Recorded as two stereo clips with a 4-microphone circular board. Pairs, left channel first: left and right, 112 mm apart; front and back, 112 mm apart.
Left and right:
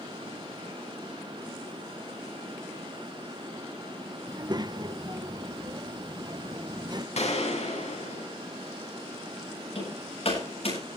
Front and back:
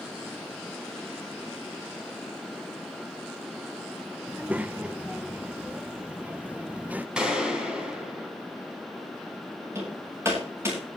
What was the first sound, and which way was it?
A child speaking, 110° right.